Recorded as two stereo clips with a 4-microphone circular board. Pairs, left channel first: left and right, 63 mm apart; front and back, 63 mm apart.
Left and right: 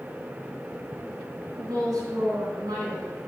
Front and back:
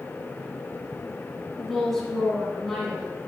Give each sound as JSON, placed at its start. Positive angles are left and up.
{"t": 1.6, "sound": "a woman speaking", "azimuth_deg": -90, "distance_m": 3.5}